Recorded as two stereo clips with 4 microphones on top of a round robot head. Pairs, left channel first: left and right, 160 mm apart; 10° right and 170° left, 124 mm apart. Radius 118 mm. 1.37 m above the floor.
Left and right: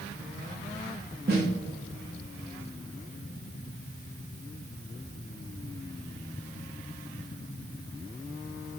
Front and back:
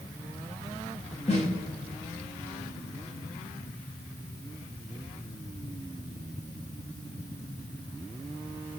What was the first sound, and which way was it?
A snare drum, 60° right.